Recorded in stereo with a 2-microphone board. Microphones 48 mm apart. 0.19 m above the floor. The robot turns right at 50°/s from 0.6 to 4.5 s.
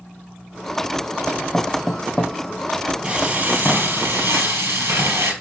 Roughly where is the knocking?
Centre.